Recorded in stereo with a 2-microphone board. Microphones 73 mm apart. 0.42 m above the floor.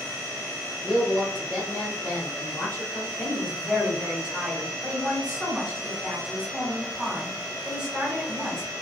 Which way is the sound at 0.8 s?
20° left (ahead or behind).